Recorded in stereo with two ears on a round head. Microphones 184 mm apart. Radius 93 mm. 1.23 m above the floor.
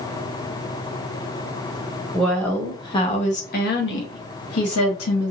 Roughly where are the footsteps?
I don't hear footsteps.